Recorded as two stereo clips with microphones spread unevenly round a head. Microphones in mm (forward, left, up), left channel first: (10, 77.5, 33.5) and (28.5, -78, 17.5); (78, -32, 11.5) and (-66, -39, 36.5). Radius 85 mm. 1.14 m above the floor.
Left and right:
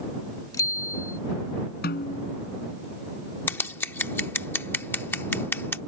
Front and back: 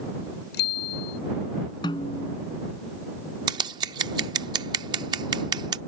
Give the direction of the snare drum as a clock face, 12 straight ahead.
10 o'clock.